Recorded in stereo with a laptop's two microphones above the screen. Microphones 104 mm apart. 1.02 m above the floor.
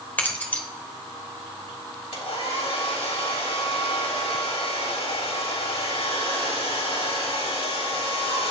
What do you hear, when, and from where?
0.2 s keys jangling: 15° left (ahead or behind), 3 m
2.1 s a hair dryer: 75° left (ahead or behind), 4 m